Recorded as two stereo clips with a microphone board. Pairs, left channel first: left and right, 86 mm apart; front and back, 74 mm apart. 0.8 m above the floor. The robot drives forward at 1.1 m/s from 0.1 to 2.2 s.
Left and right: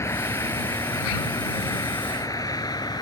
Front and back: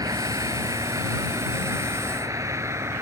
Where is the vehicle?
145° left; by 3.0 s 130° left.